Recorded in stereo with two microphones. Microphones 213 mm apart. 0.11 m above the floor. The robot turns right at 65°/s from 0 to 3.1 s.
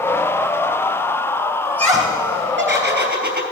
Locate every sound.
1.6 s laughter: 155° right, 3 m; by 3.4 s 60° right, 3 m